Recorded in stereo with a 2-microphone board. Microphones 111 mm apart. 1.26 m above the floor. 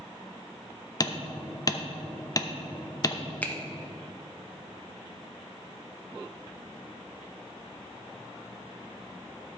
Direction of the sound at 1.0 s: 35° left (ahead or behind).